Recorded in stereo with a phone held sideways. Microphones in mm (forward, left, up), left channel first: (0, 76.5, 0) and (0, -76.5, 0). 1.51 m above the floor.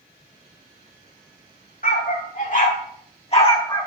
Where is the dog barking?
65° left (ahead or behind), 2 m; by 3.9 s 25° left (ahead or behind), 1.1 m.